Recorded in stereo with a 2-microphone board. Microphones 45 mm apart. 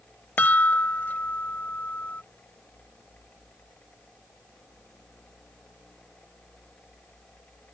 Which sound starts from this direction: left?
A chime, at 0.4 s.